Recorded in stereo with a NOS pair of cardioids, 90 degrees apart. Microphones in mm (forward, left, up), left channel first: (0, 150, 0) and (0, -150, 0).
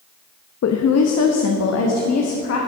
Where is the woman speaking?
60° left, 0.9 m; by 2.6 s 55° left, 2 m.